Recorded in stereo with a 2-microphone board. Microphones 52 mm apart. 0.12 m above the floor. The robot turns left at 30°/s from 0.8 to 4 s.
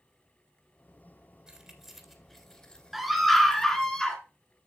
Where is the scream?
5° right (ahead or behind), 1.2 m; by 4.2 s 10° left (ahead or behind), 1.2 m.